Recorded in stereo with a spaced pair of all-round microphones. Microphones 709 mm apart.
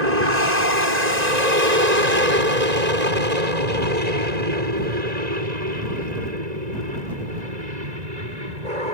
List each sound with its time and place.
0.0 s an aircraft: 65° right (ahead or behind); by 8.9 s 70° right (ahead or behind)